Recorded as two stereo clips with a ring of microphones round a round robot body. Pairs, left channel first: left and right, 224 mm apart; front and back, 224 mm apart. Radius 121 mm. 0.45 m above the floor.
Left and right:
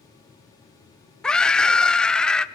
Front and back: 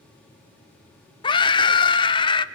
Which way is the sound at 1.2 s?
10° left.